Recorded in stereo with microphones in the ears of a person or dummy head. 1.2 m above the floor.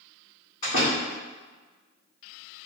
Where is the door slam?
50° left (ahead or behind), 1.8 m.